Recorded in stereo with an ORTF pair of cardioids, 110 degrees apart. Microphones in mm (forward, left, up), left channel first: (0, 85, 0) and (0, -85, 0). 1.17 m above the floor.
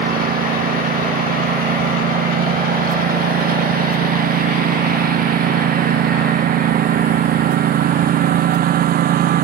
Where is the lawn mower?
60° right.